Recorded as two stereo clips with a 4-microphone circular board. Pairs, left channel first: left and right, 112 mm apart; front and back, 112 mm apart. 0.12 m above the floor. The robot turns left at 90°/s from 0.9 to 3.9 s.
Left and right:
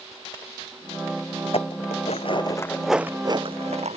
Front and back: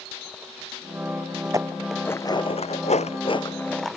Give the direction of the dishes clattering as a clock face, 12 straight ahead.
8 o'clock.